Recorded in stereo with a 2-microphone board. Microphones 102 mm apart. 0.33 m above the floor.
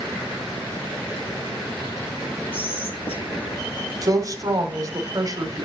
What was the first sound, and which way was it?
Whispering, 80° left.